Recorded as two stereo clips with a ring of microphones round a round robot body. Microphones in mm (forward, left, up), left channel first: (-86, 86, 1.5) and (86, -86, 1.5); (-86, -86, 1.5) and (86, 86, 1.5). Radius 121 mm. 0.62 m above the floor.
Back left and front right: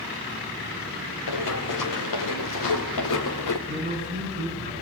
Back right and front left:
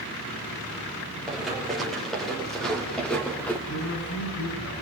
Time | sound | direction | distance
1.3 | running footsteps | 135° left | 5 m
3.7 | a man speaking | 100° right | 7.5 m